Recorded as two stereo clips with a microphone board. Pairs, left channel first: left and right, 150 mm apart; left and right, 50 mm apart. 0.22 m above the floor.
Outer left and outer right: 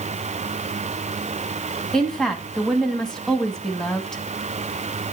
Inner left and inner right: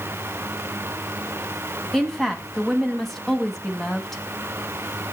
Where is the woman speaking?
5° left (ahead or behind), 1.8 m.